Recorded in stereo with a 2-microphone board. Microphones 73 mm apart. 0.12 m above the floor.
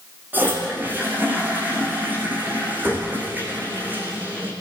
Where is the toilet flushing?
25° right (ahead or behind), 3.5 m.